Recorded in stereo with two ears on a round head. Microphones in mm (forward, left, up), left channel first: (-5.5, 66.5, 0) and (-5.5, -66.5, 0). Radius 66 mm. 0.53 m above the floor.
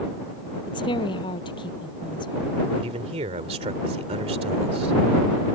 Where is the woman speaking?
35° left (ahead or behind).